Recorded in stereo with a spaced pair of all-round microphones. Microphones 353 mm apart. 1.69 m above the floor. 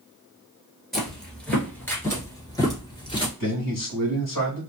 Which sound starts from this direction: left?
A man speaking, at 3.4 s.